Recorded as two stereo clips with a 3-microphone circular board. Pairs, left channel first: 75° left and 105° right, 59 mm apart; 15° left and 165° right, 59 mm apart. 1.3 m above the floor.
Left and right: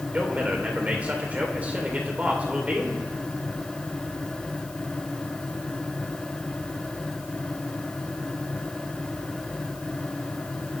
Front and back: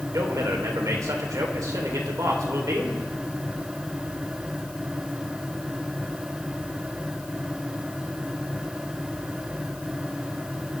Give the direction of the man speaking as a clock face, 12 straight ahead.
6 o'clock.